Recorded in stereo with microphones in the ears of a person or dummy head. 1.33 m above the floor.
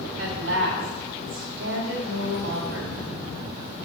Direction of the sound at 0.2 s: 75° right (ahead or behind).